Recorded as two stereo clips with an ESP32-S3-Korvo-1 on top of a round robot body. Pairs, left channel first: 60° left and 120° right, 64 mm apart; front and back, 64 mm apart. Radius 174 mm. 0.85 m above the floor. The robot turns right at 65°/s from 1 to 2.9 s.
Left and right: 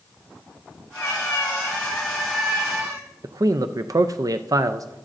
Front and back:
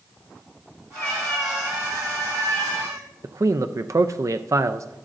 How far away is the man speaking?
About 0.5 m.